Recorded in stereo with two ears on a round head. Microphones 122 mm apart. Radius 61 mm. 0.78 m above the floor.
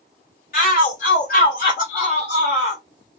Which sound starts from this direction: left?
A shout, at 0.5 s.